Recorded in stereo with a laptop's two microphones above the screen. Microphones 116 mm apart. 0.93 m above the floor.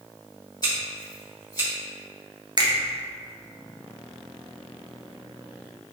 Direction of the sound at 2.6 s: 40° right (ahead or behind).